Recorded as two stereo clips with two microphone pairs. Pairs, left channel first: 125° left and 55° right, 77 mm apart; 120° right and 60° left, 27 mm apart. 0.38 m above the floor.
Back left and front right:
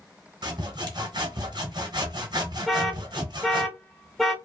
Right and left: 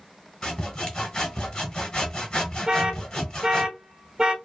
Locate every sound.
0.4 s sawing: 65° right, 1.1 m
2.7 s an alarm: 40° left, 0.6 m